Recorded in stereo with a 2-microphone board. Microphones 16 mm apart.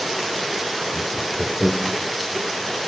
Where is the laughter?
50° left (ahead or behind), 4 m.